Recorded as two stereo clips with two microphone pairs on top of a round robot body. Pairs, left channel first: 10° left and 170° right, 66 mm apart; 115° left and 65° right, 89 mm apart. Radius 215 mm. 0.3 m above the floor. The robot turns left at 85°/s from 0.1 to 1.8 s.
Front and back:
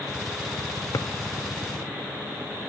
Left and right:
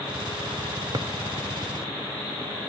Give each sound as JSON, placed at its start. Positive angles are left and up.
{"t": 0.9, "sound": "a drawer", "azimuth_deg": -20}